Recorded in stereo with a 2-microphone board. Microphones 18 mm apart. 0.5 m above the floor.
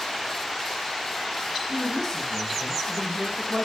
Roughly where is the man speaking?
Centre.